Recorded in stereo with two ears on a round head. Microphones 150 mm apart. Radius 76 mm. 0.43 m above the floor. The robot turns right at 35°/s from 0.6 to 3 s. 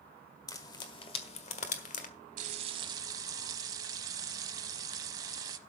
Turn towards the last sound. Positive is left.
turn(degrees=-25)  # may be behind; listen again after turning